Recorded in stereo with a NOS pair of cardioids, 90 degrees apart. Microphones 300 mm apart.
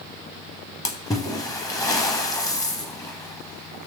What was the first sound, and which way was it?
A splash, 10° left.